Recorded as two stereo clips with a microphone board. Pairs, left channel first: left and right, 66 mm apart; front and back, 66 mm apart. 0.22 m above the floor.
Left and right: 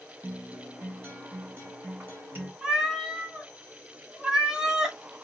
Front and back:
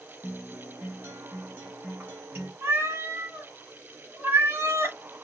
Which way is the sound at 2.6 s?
170° right.